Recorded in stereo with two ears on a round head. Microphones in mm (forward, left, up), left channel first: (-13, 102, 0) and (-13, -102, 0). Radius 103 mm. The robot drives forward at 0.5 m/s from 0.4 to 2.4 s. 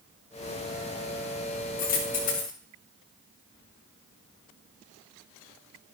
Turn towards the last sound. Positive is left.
turn(degrees=40)  # may be behind; listen again after turning